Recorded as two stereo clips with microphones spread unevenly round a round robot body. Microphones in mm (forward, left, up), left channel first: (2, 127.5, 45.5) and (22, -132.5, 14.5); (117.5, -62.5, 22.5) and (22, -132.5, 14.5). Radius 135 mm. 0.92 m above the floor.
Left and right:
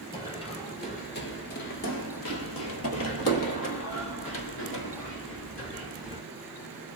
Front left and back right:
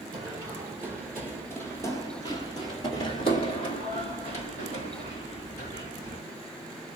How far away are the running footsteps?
About 1.3 m.